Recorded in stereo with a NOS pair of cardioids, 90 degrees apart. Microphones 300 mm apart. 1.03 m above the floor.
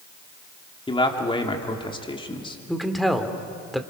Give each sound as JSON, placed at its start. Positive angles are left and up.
{"t": 0.9, "sound": "a man speaking", "azimuth_deg": 15, "distance_m": 3.0}
{"t": 2.7, "sound": "a man speaking", "azimuth_deg": 0, "distance_m": 2.5}